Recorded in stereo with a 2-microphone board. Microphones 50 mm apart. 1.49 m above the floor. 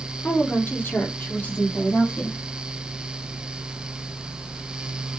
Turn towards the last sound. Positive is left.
turn(degrees=25)  # may be behind; listen again after turning